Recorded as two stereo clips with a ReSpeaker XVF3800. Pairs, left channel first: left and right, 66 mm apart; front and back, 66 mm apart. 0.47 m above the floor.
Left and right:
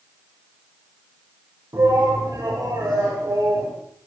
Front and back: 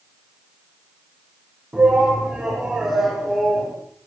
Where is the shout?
110° right, 3.5 m; by 3.7 s 90° right, 3 m.